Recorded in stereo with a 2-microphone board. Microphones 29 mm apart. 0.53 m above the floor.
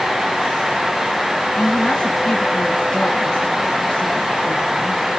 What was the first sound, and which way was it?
A woman speaking, 35° left (ahead or behind).